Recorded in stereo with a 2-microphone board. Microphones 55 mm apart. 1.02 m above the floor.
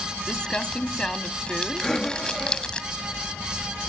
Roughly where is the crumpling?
Centre.